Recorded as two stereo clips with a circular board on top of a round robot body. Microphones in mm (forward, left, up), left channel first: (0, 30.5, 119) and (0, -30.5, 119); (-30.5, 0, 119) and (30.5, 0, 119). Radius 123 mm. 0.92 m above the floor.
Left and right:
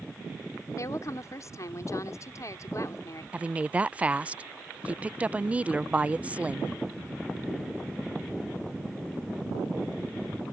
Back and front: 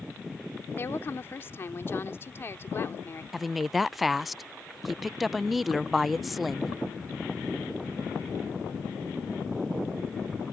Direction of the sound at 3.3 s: 85° right.